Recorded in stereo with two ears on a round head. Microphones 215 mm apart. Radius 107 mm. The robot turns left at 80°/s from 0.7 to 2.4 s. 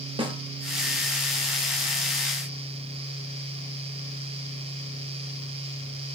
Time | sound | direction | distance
0.2 | a snare drum | 20° right (ahead or behind) | 0.5 m